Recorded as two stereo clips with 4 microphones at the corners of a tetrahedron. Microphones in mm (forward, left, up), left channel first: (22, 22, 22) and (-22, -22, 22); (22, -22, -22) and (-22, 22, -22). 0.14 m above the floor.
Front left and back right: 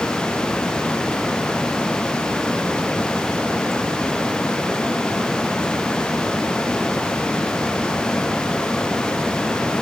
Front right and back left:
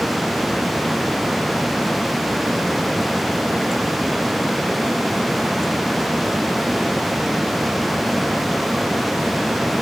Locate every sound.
Only background noise.